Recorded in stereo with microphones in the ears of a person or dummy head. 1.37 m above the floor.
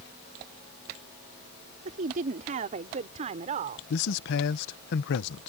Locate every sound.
1.9 s a woman speaking: 45° right (ahead or behind)
3.9 s a man speaking: 65° left (ahead or behind)